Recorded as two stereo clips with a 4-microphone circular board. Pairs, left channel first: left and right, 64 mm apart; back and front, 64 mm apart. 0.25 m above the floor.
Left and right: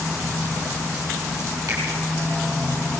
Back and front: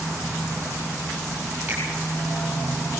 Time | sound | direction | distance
1.7 | a finger snap | 65° right | 6.5 m